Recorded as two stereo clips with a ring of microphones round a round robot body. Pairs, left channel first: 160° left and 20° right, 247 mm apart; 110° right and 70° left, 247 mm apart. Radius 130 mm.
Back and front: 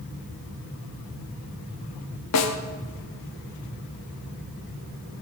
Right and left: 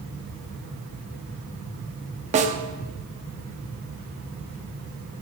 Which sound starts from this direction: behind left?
A snare drum, at 2.3 s.